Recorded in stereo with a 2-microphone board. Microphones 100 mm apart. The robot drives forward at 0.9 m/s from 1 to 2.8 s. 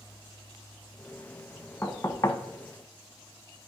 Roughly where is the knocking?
Centre.